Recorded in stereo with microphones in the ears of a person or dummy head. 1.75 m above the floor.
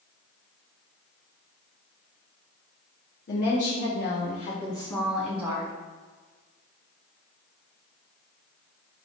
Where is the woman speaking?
55° left (ahead or behind), 1.0 m; by 5.7 s 15° right (ahead or behind), 0.9 m.